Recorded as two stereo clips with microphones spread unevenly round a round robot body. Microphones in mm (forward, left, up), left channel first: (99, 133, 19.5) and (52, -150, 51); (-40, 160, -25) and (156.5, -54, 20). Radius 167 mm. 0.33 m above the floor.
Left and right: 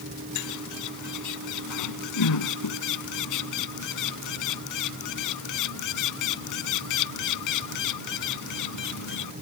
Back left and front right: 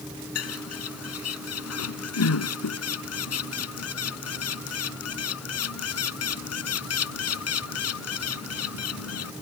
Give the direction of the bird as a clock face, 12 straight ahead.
9 o'clock.